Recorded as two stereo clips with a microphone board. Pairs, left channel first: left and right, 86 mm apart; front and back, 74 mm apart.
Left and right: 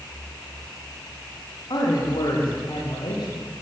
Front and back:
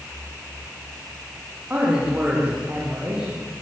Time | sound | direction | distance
1.7 | a man speaking | 120° left | 7.5 m